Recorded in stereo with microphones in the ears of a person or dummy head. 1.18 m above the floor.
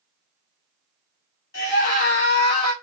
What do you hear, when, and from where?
1.5 s a scream: 60° left (ahead or behind), 1.8 m; by 2.7 s 40° left (ahead or behind), 1.2 m